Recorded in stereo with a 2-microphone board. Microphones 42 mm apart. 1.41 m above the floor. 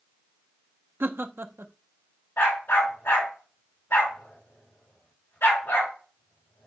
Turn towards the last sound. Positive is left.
turn(degrees=70)  # may be behind; listen again after turning